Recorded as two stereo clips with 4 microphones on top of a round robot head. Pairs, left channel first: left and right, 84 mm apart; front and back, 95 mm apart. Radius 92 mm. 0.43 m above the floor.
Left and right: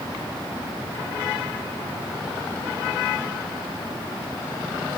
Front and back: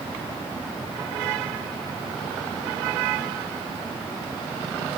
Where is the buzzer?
I don't hear a buzzer.